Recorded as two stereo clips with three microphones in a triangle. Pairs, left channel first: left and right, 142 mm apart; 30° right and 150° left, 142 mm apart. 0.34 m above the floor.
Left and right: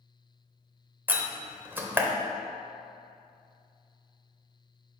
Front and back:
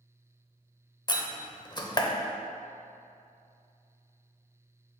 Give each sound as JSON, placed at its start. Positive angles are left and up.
{"t": 1.1, "sound": "a door slam", "azimuth_deg": -25, "distance_m": 0.6}